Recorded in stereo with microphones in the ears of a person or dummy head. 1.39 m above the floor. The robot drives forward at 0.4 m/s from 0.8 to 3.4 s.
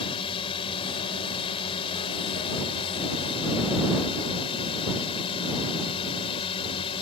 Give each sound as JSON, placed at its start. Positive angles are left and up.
{"t": 0.0, "sound": "a drone", "side_deg": 25}